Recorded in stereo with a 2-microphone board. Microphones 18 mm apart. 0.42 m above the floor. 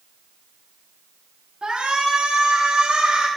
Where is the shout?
50° right (ahead or behind), 4 m.